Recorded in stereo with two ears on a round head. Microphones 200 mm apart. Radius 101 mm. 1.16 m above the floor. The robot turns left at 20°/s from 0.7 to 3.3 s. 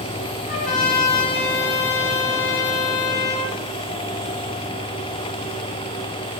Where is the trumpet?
145° left, 1.8 m; by 3.6 s 95° left, 1.8 m.